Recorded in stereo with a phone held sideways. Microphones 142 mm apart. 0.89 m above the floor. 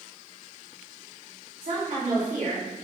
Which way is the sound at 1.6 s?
75° right (ahead or behind).